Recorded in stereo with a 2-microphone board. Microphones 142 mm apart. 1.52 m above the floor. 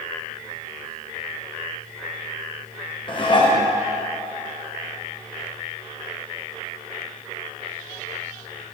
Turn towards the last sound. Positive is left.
turn(degrees=35)  # may be behind; listen again after turning